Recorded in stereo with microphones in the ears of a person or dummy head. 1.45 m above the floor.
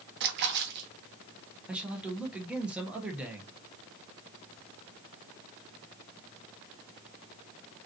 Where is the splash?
60° right (ahead or behind), 1.0 m.